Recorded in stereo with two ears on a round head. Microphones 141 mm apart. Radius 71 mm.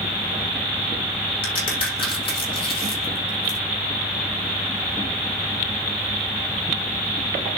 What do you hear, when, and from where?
1.4 s a crack: 35° left (ahead or behind), 6 m